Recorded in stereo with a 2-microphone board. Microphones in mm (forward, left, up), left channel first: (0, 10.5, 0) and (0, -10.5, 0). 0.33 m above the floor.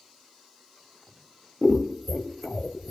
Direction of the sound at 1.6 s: 15° left (ahead or behind).